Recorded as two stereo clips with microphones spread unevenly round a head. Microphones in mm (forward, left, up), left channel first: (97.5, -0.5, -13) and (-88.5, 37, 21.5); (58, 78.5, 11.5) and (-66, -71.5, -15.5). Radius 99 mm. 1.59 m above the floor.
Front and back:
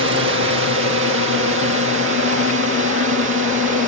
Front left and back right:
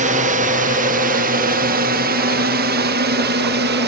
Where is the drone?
170° right; by 3.9 s 160° right.